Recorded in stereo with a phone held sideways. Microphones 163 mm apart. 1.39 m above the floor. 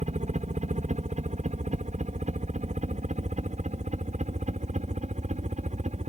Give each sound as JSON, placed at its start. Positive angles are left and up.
{"t": 0.0, "sound": "a helicopter", "side_deg": -50}